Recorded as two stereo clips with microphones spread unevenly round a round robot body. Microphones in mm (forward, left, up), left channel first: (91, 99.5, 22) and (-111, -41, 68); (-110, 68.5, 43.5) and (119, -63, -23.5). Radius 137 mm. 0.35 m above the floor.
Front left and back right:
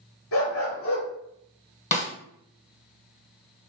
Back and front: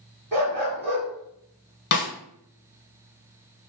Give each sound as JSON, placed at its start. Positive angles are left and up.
{"t": 0.3, "sound": "a dog barking", "azimuth_deg": 65, "distance_m": 3.0}
{"t": 1.9, "sound": "a snare drum", "azimuth_deg": 100, "distance_m": 1.2}